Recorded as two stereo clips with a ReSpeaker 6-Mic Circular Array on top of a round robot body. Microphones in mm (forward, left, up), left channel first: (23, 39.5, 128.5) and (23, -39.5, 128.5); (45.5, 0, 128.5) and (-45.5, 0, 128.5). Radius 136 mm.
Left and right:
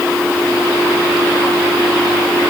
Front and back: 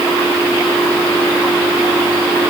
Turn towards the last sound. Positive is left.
No sound to turn to.